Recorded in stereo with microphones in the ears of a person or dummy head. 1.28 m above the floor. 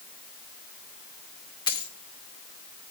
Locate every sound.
1.7 s a dropped coin: 25° left (ahead or behind), 1.1 m